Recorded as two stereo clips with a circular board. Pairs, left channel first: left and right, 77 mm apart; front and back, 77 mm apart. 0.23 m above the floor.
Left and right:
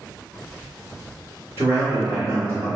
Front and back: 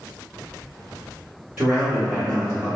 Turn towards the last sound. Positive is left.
turn(degrees=-110)